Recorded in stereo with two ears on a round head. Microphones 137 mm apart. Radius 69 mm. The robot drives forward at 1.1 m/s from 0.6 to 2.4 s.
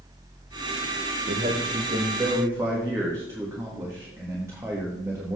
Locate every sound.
1.3 s a man speaking: 45° right (ahead or behind), 0.7 m; by 5.4 s 20° right (ahead or behind), 1.7 m